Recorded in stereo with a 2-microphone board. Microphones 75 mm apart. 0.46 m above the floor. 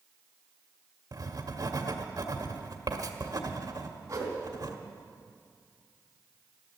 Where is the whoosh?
40° right (ahead or behind), 3 m.